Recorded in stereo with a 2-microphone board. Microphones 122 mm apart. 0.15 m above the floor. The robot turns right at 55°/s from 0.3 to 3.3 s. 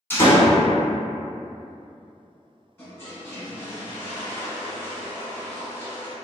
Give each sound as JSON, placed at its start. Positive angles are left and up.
{"t": 0.1, "sound": "a door slam", "side_deg": 20, "distance_m": 0.8}
{"t": 2.8, "sound": "a toilet flushing", "side_deg": 20, "distance_m": 1.0}